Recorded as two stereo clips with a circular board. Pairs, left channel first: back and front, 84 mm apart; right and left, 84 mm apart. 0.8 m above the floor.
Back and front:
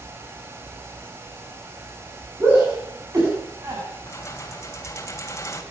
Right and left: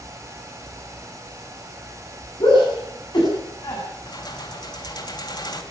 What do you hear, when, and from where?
2.4 s a shout: 60° right, 8 m; by 3.8 s 50° right, 7.5 m
4.1 s keys jangling: 125° right, 3 m